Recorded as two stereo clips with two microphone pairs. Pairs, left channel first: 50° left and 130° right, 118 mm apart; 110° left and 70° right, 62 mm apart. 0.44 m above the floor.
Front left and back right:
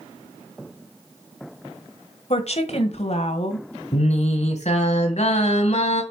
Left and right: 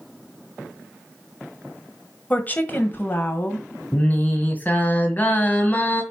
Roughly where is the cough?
I don't hear a cough.